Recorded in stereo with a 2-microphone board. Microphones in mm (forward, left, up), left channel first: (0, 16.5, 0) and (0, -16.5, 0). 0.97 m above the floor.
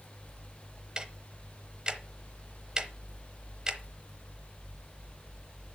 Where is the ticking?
25° right (ahead or behind), 0.9 m.